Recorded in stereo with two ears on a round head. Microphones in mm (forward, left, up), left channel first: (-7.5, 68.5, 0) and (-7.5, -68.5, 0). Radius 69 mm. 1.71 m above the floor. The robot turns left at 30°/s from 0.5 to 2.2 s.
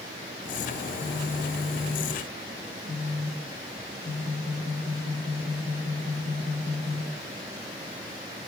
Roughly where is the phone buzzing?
Behind left.